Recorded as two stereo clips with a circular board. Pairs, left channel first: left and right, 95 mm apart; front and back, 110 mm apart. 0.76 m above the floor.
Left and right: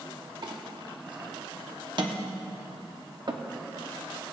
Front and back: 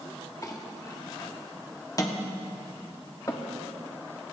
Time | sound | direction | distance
0.4 | a clink | 55° right | 1.0 m